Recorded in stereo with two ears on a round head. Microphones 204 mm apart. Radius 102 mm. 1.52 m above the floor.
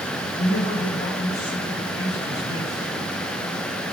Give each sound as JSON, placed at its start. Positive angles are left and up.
{"t": 0.4, "sound": "a man speaking", "side_deg": 25, "distance_m": 3.0}